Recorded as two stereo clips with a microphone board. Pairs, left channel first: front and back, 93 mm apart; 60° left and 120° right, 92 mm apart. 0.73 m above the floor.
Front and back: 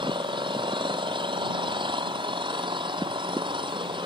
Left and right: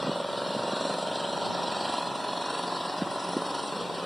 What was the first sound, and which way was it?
An engine running, 150° left.